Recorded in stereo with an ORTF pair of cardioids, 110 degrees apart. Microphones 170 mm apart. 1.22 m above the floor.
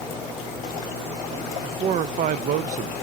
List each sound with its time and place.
1.6 s a man speaking: 50° right, 0.5 m